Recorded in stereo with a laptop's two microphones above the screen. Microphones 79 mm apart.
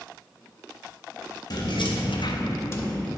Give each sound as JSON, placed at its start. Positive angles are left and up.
{"t": 1.5, "sound": "keys jangling", "side_deg": 55, "distance_m": 0.9}